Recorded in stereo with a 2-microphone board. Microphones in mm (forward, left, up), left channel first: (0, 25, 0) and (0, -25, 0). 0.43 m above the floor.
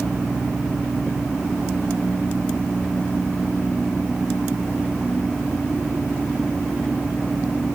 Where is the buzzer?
No buzzer in this recording.